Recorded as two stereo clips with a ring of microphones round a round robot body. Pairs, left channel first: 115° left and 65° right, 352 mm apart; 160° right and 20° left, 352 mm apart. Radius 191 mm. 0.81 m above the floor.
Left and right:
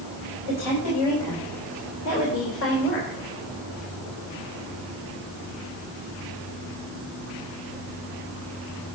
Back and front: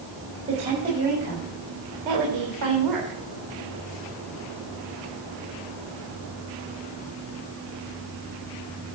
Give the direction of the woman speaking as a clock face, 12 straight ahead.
9 o'clock.